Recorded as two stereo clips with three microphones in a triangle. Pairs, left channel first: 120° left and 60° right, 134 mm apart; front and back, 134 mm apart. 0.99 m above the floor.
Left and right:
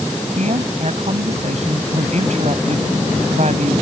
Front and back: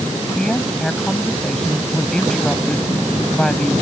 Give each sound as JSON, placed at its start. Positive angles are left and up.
{"t": 0.4, "sound": "a woman speaking", "azimuth_deg": -85}